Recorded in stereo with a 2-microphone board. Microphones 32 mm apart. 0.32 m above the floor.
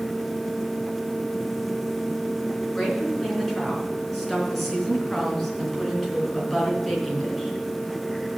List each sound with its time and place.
2.8 s a woman speaking: 5° left (ahead or behind), 4 m